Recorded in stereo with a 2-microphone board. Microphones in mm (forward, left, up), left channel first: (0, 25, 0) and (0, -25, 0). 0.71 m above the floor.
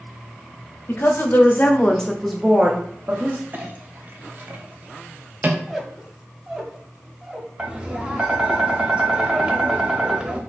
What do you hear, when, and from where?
0.9 s a woman speaking: 50° left (ahead or behind), 1.0 m; by 3.4 s 45° right (ahead or behind), 0.9 m
3.5 s a clink: 40° right (ahead or behind), 0.6 m
5.7 s a squeak: 10° right (ahead or behind), 0.8 m
7.6 s tapping: 20° right (ahead or behind), 0.7 m